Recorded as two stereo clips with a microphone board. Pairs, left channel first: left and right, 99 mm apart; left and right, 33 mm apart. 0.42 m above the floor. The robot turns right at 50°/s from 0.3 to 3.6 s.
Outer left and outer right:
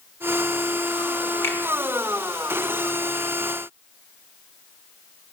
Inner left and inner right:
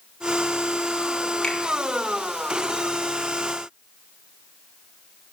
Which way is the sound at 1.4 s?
25° left (ahead or behind).